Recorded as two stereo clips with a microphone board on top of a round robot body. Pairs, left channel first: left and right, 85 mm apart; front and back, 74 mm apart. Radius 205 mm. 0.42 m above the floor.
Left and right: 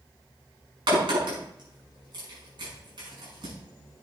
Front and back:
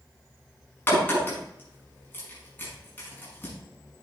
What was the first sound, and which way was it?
A crack, 65° right.